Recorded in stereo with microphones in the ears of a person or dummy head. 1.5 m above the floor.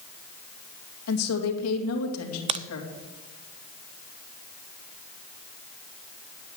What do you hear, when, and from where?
1.1 s a woman speaking: 85° left, 2.5 m
2.5 s a crack: 30° right (ahead or behind), 0.5 m